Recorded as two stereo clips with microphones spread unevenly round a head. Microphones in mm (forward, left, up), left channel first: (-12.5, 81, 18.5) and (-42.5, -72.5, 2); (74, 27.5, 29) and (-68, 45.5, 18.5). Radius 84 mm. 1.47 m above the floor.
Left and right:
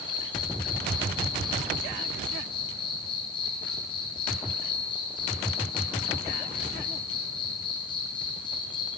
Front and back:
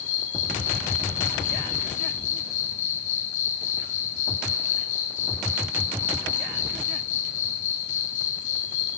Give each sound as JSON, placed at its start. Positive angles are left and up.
{"t": 0.0, "sound": "an insect", "azimuth_deg": 20, "distance_m": 3.0}